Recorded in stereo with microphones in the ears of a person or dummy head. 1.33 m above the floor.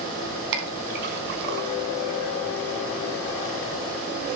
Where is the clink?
60° right (ahead or behind), 4.5 m.